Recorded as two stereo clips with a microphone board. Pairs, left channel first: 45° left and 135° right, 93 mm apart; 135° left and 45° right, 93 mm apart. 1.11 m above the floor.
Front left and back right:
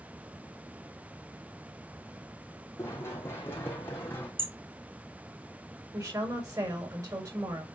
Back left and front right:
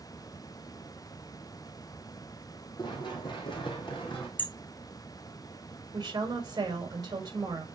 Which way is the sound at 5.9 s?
85° right.